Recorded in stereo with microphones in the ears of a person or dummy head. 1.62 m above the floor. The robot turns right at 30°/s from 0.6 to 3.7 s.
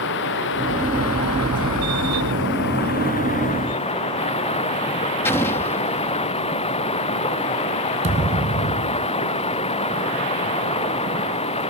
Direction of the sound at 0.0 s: 60° left.